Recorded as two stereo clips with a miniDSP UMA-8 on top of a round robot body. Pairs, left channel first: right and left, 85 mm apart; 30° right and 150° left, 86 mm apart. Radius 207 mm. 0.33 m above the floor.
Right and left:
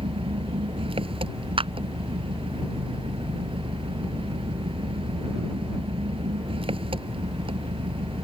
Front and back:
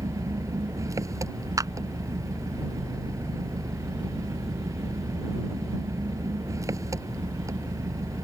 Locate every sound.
0.0 s an engine running: 95° left
1.6 s a clap: 100° left